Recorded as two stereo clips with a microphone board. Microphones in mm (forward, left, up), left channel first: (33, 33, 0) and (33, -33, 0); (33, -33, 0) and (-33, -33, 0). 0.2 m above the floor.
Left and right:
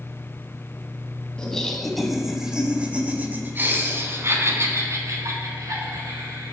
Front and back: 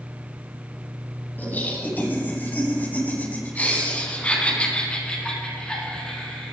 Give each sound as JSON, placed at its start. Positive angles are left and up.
{"t": 1.4, "sound": "laughter", "azimuth_deg": 25, "distance_m": 1.7}